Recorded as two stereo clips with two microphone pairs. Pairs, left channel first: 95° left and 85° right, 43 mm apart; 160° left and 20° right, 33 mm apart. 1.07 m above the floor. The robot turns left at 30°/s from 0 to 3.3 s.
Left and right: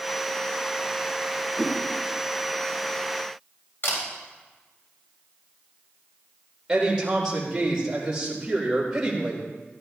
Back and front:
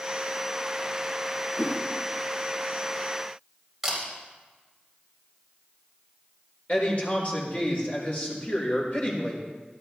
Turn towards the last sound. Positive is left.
turn(degrees=-160)